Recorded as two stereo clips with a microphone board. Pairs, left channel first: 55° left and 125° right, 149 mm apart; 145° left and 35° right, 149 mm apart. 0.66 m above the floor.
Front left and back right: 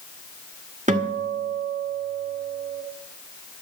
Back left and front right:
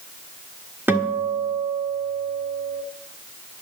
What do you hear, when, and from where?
0.9 s a guitar: 110° right, 1.4 m